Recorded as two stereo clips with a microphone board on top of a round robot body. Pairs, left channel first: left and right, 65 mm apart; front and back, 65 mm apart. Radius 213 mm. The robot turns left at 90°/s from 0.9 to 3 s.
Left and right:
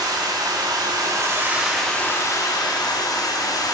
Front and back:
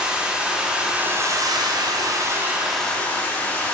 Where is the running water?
105° right, 1.6 m; by 3.8 s 65° left, 1.6 m.